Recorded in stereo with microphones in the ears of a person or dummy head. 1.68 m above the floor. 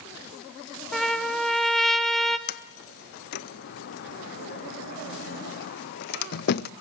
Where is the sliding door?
55° left (ahead or behind), 0.7 m.